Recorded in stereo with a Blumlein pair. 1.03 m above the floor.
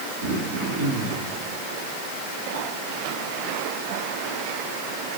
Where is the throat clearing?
65° right, 5.5 m.